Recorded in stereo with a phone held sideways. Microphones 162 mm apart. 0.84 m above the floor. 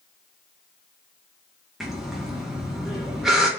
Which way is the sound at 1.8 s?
5° right (ahead or behind).